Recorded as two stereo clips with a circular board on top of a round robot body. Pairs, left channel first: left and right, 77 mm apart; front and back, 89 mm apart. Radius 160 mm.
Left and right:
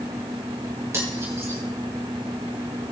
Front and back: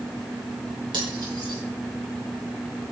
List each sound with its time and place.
0.9 s cutlery clinking: 145° right, 5 m